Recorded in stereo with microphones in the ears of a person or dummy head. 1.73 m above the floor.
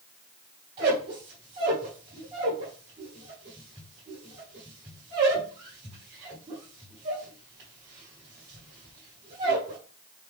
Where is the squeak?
30° right (ahead or behind), 1.5 m.